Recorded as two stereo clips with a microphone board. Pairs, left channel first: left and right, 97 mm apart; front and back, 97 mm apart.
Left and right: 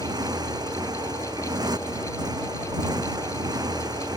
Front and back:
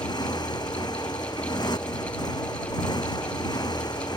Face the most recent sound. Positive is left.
turn(degrees=-45)